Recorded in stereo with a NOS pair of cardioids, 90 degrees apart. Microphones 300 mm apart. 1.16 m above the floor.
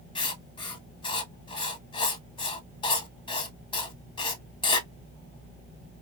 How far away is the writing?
About 1.0 m.